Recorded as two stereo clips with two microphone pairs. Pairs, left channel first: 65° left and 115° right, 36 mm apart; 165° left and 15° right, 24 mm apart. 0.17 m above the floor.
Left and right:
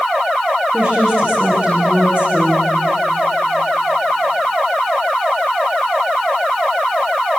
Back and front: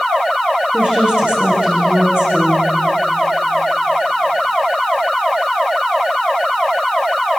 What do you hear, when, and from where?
0.7 s a woman speaking: 55° right, 9.5 m